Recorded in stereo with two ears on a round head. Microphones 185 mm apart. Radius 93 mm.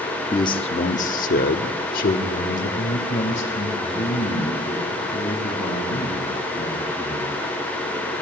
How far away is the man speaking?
About 0.7 m.